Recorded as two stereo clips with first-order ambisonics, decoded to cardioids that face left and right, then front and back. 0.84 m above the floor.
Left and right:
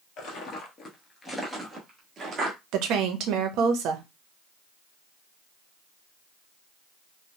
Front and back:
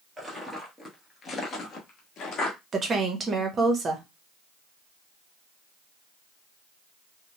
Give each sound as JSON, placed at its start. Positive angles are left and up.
{"t": 0.2, "sound": "footsteps", "azimuth_deg": 100, "distance_m": 1.1}
{"t": 2.7, "sound": "a woman speaking", "azimuth_deg": -115, "distance_m": 0.7}